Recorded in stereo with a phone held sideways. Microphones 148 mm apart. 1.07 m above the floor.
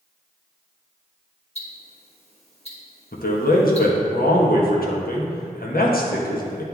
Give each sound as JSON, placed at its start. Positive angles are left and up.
{"t": 1.6, "sound": "ticking", "side_deg": 45, "distance_m": 1.3}
{"t": 3.1, "sound": "a man speaking", "side_deg": 75, "distance_m": 1.1}